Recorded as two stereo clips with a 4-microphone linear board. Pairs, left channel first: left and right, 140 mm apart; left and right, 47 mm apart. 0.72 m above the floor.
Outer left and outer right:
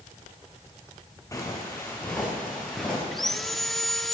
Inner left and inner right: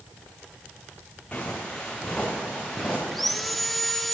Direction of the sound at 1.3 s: 25° left (ahead or behind).